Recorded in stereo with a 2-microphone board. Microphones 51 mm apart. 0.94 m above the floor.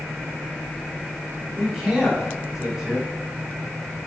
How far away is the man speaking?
About 6 m.